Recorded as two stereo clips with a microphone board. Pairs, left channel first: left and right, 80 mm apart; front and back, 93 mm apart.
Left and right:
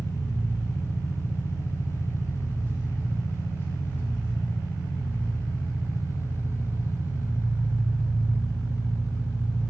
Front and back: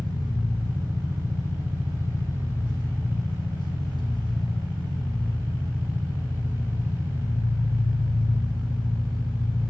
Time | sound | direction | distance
0.0 | an engine running | 30° left | 2.5 m